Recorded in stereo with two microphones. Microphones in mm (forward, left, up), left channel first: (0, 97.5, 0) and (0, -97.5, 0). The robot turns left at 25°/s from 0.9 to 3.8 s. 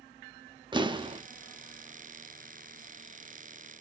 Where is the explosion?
25° right (ahead or behind), 0.5 m; by 1.2 s 30° right (ahead or behind), 0.5 m.